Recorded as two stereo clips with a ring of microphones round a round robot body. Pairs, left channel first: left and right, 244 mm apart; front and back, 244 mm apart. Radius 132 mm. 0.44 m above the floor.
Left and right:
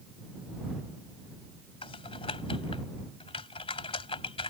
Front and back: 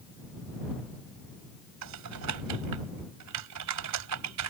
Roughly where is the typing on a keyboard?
Behind.